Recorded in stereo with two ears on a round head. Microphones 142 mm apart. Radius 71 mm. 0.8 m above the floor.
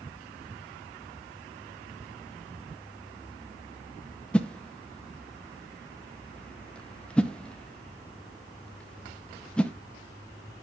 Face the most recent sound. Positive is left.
turn(degrees=5)  # may be behind; listen again after turning